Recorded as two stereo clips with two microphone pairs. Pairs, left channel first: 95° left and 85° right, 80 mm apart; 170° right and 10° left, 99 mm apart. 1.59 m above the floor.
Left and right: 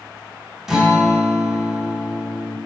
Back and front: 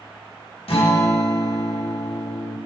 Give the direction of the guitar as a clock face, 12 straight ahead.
6 o'clock.